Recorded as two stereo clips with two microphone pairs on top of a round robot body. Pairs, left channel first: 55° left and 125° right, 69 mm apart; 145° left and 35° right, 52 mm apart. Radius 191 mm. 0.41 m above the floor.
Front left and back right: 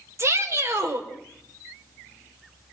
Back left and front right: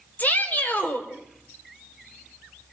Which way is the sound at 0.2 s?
165° right.